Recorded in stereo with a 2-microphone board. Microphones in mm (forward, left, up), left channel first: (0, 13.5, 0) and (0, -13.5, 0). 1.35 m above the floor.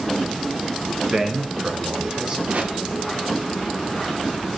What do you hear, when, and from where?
1.1 s a man speaking: 25° right (ahead or behind), 1.4 m; by 2.4 s 30° right (ahead or behind), 3 m
2.5 s a whoosh: 60° right (ahead or behind), 1.8 m